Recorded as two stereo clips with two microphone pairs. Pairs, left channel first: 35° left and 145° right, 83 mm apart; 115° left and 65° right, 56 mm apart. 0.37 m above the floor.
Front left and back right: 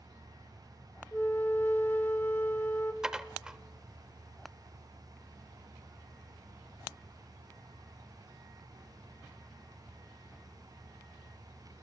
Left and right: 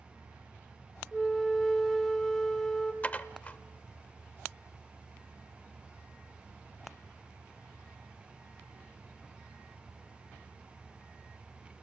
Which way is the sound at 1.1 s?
40° left.